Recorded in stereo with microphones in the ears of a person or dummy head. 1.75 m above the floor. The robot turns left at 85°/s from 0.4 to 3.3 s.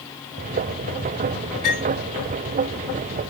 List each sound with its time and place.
1.6 s cutlery clinking: 45° right (ahead or behind), 7 m; by 1.8 s 30° right (ahead or behind), 7 m